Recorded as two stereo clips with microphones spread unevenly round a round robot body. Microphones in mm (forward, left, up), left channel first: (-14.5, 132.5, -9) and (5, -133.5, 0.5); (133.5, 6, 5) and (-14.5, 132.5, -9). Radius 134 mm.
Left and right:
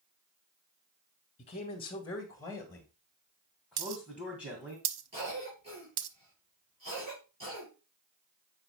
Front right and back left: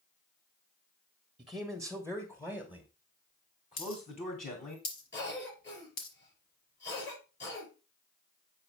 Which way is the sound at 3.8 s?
95° right.